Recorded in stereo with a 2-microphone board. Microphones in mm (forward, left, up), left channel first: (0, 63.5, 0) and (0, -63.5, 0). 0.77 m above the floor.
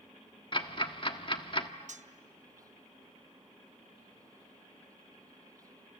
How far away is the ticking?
About 1.2 m.